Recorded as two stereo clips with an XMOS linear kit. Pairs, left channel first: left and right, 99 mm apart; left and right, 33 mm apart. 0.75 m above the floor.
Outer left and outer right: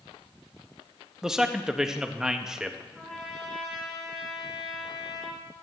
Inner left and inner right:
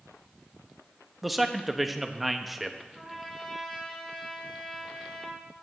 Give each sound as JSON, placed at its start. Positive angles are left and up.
{"t": 1.2, "sound": "a man speaking", "side_deg": -5, "distance_m": 0.7}
{"t": 3.0, "sound": "a trumpet", "side_deg": 5, "distance_m": 4.0}